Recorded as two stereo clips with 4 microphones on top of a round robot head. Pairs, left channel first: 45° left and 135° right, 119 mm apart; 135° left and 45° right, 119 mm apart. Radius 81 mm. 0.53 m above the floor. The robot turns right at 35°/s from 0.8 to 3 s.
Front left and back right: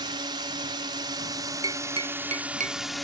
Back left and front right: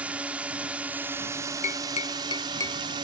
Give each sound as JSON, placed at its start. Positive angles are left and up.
{"t": 0.0, "sound": "a drone", "azimuth_deg": -120}
{"t": 1.6, "sound": "tapping", "azimuth_deg": 165}